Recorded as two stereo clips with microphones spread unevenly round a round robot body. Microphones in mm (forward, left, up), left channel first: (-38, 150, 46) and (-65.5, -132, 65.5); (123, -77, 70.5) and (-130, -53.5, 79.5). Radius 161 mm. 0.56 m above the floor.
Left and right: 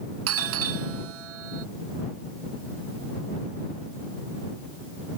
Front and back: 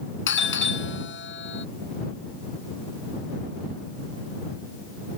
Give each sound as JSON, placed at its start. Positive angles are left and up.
{"t": 0.3, "sound": "a doorbell", "azimuth_deg": -50}